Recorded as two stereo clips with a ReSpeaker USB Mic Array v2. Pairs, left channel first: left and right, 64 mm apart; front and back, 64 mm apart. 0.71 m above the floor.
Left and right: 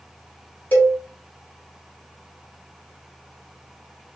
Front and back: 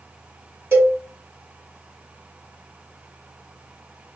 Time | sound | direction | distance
0.7 | a cowbell | 145° left | 1.7 m